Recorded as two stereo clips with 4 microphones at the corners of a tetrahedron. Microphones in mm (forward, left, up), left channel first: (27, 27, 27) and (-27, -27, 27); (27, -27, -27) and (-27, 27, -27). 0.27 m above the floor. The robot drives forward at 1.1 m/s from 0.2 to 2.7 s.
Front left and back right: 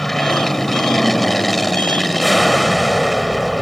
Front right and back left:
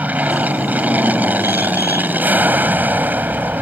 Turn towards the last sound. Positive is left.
turn(degrees=135)